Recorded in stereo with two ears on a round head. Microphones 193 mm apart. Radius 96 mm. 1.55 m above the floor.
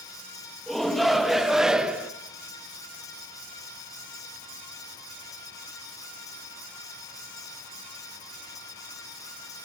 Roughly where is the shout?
Centre.